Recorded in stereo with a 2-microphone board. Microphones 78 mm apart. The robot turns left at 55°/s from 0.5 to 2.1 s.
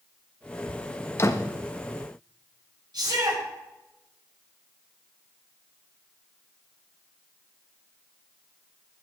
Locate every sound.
1.2 s a door slam: 35° left (ahead or behind), 1.4 m; by 1.5 s 50° left (ahead or behind), 1.4 m
2.9 s a shout: 85° right, 8.5 m